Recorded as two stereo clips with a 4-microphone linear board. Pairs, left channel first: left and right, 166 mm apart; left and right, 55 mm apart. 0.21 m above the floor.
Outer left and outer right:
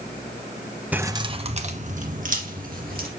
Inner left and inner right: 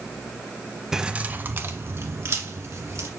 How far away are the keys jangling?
About 0.8 m.